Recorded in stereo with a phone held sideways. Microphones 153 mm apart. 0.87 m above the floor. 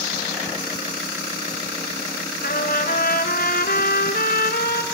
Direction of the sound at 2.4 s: 70° left (ahead or behind).